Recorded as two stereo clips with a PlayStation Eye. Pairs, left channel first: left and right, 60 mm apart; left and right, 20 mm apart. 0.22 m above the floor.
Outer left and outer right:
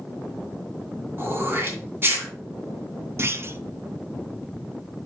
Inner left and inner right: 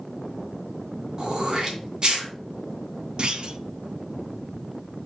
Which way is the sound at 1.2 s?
40° right (ahead or behind).